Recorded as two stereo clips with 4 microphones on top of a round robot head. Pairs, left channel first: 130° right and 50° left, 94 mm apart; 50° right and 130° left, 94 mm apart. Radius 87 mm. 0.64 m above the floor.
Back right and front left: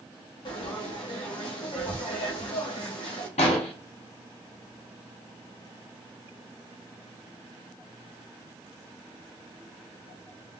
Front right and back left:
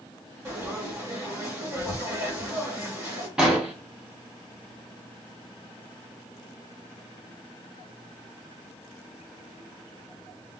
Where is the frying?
170° right, 1.4 m.